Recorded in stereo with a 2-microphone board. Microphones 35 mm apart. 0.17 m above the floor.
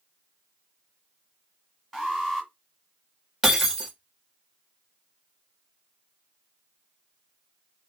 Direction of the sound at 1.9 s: 5° right (ahead or behind).